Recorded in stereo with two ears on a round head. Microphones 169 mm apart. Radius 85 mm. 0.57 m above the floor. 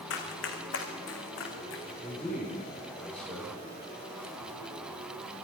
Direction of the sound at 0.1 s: 75° left (ahead or behind).